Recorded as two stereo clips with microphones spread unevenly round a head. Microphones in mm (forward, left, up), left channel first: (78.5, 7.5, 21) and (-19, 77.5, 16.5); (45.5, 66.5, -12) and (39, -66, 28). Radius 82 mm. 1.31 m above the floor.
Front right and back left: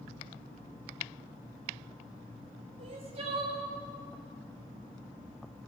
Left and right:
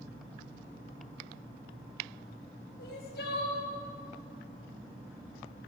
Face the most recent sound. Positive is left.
turn(degrees=110)